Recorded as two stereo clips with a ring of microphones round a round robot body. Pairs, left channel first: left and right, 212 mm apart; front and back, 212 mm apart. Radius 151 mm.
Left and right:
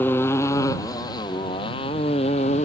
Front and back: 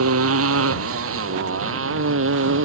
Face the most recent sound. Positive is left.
turn(degrees=160)